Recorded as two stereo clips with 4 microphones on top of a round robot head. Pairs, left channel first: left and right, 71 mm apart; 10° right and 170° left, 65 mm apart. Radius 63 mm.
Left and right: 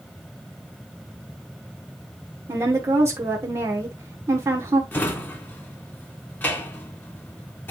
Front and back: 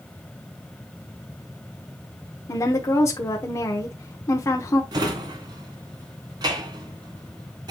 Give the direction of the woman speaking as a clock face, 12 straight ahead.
2 o'clock.